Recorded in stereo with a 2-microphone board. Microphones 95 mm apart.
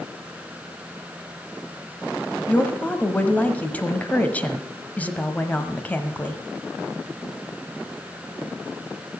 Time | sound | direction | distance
2.5 | a woman speaking | 15° left (ahead or behind) | 1.2 m